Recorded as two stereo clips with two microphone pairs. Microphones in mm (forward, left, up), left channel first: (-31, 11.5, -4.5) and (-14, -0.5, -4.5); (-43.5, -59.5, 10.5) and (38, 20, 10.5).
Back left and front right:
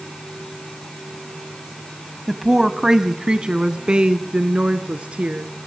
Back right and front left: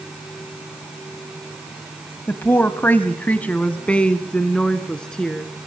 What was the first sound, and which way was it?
A woman speaking, 105° right.